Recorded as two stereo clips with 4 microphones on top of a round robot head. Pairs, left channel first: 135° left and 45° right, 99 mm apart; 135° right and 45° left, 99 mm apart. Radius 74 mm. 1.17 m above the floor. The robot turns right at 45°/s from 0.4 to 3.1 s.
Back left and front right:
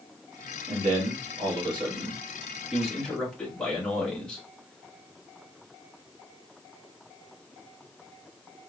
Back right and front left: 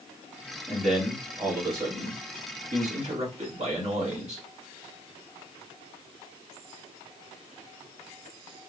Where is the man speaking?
55° right, 2.5 m; by 4.4 s 55° left, 2.5 m.